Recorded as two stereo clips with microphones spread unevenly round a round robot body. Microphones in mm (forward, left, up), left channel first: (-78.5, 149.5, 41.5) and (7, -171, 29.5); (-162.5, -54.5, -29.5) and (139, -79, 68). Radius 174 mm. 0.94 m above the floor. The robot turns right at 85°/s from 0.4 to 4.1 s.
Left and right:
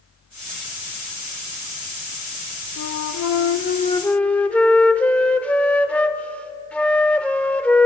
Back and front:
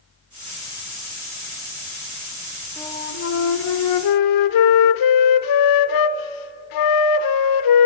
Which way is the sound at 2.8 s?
75° left.